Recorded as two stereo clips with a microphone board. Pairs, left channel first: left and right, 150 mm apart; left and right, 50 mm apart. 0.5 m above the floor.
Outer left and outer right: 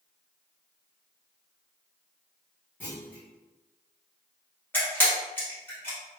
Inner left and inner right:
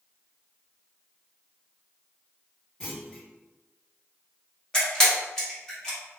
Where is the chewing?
No chewing in this recording.